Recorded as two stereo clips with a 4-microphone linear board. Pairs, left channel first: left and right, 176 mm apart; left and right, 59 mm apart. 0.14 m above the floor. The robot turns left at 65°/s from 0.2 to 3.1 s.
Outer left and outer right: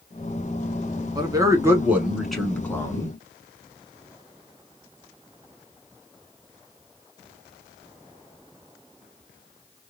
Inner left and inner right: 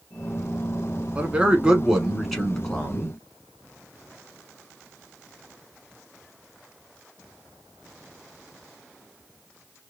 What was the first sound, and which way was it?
A man speaking, 25° right (ahead or behind).